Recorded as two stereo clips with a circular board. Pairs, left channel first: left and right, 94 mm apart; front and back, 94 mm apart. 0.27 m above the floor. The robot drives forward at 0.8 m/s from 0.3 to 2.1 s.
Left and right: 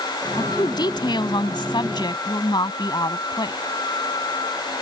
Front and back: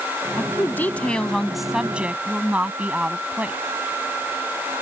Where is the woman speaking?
55° left; by 3.6 s 110° left.